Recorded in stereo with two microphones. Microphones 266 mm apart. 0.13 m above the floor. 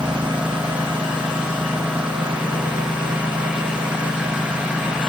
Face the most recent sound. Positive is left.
turn(degrees=-5)  # may be behind; listen again after turning